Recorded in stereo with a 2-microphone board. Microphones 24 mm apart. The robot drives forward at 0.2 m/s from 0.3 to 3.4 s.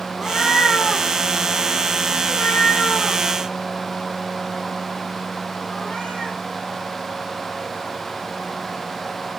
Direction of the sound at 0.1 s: 75° left (ahead or behind).